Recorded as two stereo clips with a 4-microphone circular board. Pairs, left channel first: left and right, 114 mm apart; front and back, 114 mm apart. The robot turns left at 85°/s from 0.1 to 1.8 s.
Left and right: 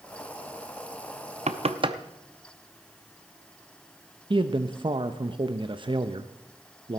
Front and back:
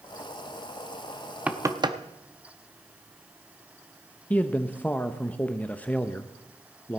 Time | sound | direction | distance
1.5 | knocking | 100° right | 0.6 m
4.3 | a man speaking | 70° right | 0.6 m